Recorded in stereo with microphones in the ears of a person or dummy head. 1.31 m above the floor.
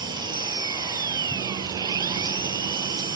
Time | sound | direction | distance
0.0 | an engine running | 20° right (ahead or behind) | ?